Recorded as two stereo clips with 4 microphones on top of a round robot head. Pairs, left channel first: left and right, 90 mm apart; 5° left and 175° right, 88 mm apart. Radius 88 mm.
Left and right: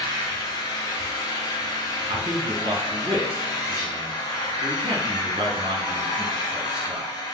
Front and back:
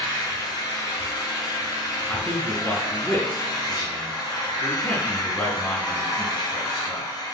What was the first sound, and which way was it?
An engine running, 45° left.